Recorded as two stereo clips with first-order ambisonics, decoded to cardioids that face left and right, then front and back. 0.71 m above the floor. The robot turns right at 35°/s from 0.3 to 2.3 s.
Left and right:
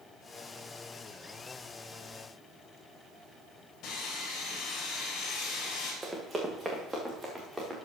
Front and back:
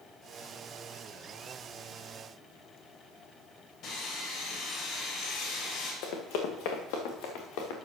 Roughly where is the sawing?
Ahead left.